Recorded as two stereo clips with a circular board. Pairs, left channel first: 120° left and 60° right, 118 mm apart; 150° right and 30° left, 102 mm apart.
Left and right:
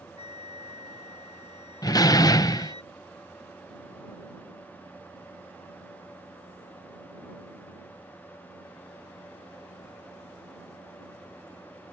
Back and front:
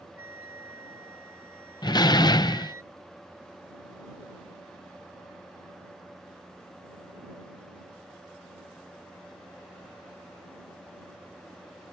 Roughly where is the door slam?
Behind.